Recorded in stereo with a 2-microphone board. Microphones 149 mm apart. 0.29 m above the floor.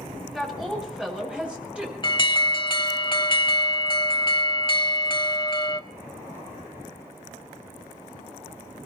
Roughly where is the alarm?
Left.